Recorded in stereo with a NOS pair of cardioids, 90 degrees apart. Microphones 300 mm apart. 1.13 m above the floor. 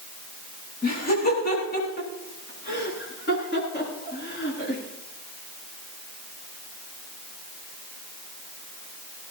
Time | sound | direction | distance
0.8 | laughter | 30° left | 9.5 m